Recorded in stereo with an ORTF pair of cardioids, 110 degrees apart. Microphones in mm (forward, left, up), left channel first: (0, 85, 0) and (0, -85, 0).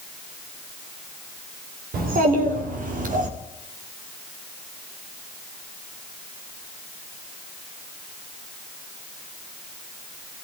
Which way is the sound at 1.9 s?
60° right.